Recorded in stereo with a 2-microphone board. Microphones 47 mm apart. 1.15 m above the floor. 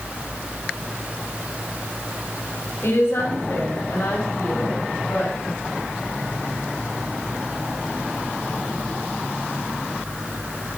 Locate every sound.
2.8 s a woman speaking: 70° left (ahead or behind), 4 m; by 5.3 s 75° left (ahead or behind), 6.5 m